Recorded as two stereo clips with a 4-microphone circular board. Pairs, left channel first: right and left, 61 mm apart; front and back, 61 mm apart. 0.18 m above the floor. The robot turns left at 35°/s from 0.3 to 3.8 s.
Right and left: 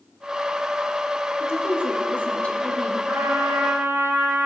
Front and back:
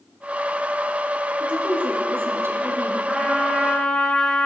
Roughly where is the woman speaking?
Behind right.